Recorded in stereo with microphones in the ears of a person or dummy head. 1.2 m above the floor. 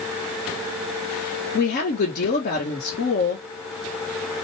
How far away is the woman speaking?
About 1.3 m.